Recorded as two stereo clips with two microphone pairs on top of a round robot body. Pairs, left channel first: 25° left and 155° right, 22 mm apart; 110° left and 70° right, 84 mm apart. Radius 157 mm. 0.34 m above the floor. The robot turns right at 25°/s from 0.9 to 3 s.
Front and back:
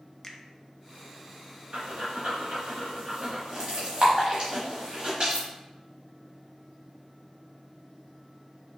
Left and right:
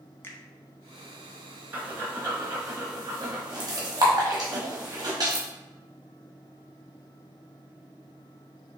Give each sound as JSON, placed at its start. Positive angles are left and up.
{"t": 0.2, "sound": "a finger snap", "azimuth_deg": 70, "distance_m": 0.9}
{"t": 1.7, "sound": "breathing", "azimuth_deg": -140, "distance_m": 1.1}